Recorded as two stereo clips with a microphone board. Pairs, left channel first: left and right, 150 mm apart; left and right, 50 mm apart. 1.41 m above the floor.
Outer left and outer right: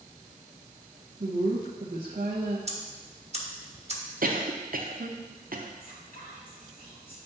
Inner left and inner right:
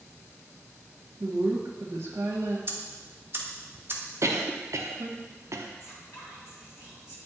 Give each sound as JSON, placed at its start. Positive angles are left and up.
{"t": 1.2, "sound": "a woman speaking", "side_deg": -75, "distance_m": 1.2}
{"t": 2.7, "sound": "ticking", "side_deg": -45, "distance_m": 1.1}
{"t": 4.2, "sound": "a cough", "side_deg": -70, "distance_m": 0.9}
{"t": 5.8, "sound": "whispering", "side_deg": 65, "distance_m": 2.5}